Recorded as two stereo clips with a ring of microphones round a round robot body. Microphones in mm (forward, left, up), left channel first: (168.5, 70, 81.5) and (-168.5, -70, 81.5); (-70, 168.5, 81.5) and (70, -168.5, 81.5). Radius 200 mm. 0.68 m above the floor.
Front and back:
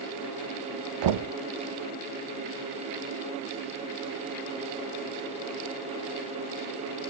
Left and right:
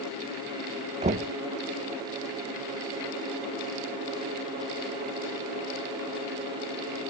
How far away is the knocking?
About 1.0 m.